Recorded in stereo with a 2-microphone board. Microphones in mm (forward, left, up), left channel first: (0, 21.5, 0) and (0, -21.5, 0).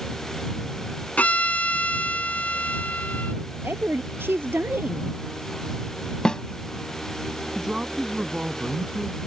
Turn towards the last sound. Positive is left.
turn(degrees=-20)  # may be behind; listen again after turning